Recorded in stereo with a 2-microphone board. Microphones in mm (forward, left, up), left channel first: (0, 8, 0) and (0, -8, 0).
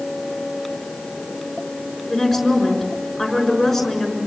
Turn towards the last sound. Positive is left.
turn(degrees=5)  # may be behind; listen again after turning